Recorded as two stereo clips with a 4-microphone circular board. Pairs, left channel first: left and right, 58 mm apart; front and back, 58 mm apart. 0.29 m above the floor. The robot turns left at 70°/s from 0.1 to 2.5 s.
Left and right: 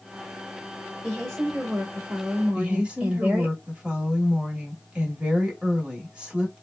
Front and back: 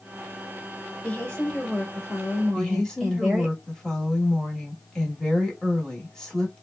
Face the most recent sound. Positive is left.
turn(degrees=-55)